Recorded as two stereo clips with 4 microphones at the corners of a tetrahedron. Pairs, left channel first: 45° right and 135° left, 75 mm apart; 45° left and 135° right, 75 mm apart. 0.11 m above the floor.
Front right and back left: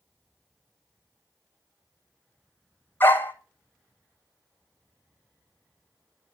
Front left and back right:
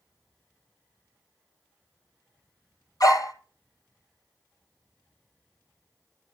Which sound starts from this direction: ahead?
A dog barking, at 3.0 s.